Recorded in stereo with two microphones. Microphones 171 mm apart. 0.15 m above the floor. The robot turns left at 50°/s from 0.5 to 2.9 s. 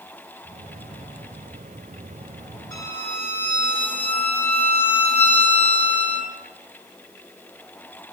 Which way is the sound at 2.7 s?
20° left (ahead or behind).